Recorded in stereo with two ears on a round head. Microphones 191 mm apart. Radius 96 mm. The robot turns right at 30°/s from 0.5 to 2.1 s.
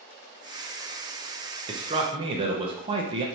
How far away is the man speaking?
About 0.7 m.